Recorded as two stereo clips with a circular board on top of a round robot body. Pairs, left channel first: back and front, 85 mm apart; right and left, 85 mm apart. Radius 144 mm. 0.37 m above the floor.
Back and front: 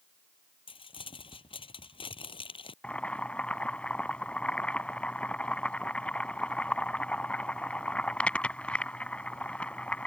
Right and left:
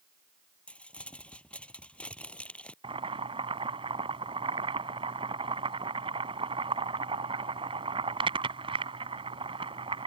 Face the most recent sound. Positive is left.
turn(degrees=105)